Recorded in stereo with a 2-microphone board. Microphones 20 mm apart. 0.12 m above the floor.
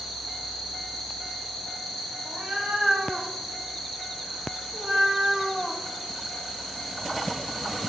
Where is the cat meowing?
85° right, 2.5 m; by 5.8 s 10° right (ahead or behind), 0.9 m.